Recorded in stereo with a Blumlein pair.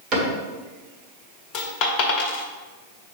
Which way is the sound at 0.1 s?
30° right.